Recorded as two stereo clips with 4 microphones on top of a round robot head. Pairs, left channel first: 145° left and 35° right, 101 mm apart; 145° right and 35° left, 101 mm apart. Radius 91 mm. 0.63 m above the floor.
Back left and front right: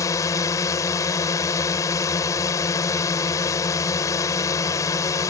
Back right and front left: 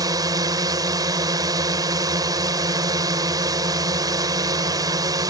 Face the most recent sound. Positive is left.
turn(degrees=90)